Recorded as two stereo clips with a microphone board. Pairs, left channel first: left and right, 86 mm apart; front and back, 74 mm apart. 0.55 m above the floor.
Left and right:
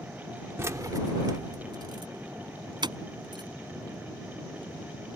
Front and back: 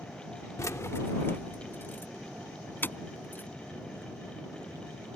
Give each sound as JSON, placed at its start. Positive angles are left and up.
{"t": 0.6, "sound": "keys jangling", "azimuth_deg": -35}